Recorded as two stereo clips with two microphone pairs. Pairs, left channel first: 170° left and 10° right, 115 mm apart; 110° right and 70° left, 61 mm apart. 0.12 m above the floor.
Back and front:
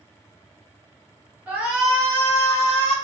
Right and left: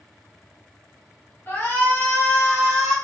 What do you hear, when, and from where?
1.5 s a shout: 75° right, 1.5 m; by 3.0 s 170° left, 1.5 m